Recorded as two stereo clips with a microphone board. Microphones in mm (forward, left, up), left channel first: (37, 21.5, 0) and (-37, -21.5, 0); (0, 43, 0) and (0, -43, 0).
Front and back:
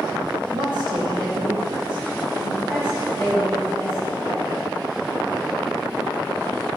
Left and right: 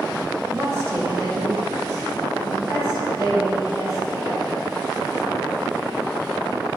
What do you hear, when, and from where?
0.5 s a woman speaking: 145° right, 2.0 m; by 4.8 s 140° right, 7 m